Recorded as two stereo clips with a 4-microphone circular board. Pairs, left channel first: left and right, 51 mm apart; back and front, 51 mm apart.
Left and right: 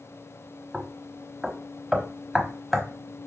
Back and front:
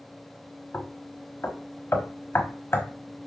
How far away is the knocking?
About 0.9 m.